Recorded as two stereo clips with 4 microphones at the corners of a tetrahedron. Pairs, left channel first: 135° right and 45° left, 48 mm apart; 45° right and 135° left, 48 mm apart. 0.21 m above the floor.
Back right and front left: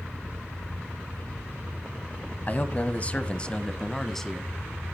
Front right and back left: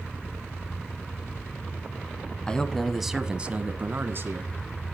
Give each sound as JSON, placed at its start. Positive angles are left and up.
{"t": 2.5, "sound": "a man speaking", "azimuth_deg": -105, "distance_m": 1.2}